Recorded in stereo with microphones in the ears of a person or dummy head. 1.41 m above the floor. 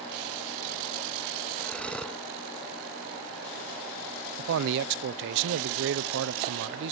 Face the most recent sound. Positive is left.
turn(degrees=-65)  # may be behind; listen again after turning